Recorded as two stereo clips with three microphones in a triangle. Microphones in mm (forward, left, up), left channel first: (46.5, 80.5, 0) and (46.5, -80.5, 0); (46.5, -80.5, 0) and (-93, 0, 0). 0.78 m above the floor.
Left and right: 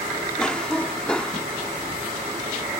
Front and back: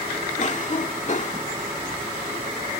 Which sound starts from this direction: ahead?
A cough, at 0.4 s.